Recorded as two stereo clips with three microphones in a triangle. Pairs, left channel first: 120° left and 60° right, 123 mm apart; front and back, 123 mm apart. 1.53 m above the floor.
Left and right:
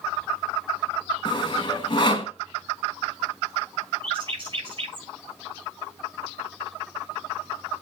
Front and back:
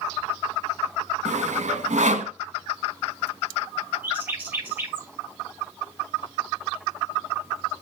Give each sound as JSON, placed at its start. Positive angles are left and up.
{"t": 1.2, "sound": "sawing", "azimuth_deg": 170, "distance_m": 1.9}
{"t": 4.0, "sound": "a bird", "azimuth_deg": -105, "distance_m": 6.5}